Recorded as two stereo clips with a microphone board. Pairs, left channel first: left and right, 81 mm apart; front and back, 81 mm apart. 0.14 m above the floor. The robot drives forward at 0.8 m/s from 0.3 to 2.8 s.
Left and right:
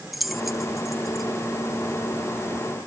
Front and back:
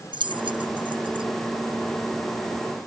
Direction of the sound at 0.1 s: Straight behind.